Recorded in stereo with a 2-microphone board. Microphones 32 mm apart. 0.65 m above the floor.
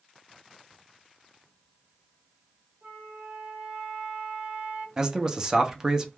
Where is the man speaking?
15° right (ahead or behind), 0.6 m.